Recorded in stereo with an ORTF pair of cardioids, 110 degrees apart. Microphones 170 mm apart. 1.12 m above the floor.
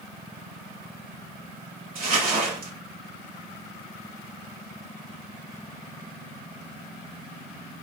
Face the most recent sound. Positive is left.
turn(degrees=-60)